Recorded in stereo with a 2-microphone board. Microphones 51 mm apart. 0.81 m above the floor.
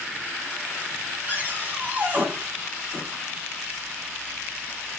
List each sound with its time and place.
1.3 s a cupboard door: 35° right (ahead or behind), 2.5 m